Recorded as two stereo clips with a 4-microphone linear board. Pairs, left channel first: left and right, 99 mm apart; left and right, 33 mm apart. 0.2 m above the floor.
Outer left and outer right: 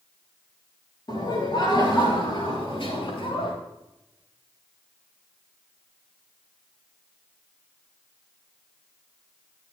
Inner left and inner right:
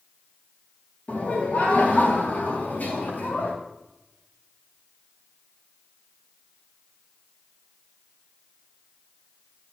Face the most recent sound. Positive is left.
turn(degrees=60)  # may be behind; listen again after turning